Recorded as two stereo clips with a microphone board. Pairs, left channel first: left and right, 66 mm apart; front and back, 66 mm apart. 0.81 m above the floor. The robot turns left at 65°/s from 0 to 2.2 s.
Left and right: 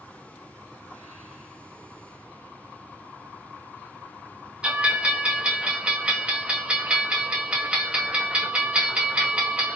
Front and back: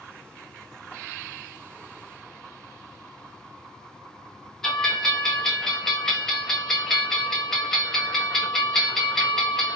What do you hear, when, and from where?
4.6 s a bell: 65° right, 0.8 m